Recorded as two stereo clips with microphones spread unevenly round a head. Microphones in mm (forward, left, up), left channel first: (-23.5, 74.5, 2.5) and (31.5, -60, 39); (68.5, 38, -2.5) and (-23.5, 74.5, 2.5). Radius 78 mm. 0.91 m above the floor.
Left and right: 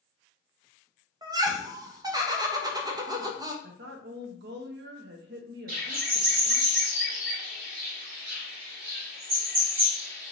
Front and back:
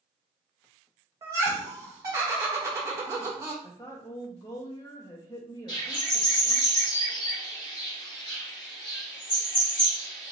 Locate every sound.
1.2 s laughter: 140° right, 0.7 m
3.6 s a woman speaking: 90° right, 0.6 m
5.7 s a bird: 90° right, 1.7 m